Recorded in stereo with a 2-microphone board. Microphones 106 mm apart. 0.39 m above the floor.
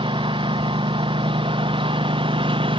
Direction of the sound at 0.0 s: 50° right (ahead or behind).